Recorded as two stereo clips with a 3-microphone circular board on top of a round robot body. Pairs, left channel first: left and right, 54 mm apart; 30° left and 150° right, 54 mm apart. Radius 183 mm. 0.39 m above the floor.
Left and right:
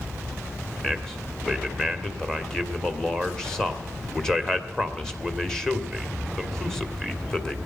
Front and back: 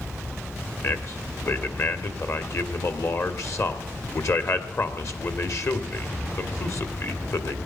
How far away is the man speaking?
About 1.9 m.